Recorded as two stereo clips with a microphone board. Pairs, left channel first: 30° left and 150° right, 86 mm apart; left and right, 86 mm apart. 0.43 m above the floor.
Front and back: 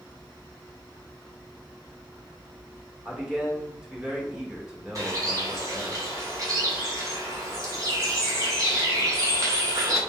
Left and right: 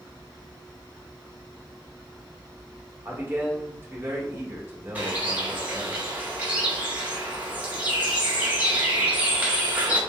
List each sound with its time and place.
3.0 s a man speaking: 80° right, 1.3 m
5.0 s a bird: 155° right, 1.8 m